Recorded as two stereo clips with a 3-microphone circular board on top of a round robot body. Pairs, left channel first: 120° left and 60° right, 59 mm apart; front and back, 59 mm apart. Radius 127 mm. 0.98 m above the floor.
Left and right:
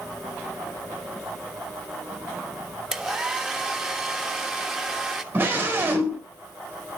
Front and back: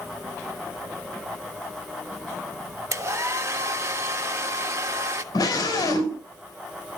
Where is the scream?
Straight ahead, 4.5 m.